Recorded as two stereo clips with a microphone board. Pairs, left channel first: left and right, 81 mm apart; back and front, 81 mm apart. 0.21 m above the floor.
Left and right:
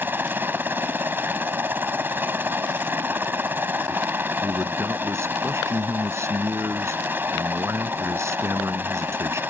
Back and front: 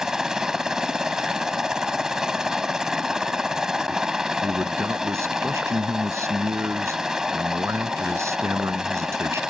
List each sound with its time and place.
0.0 s a helicopter: 75° right
4.4 s a man speaking: 45° right